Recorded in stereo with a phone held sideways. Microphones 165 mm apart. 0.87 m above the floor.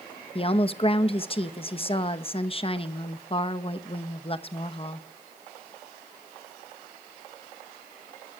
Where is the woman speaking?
35° left (ahead or behind), 0.9 m.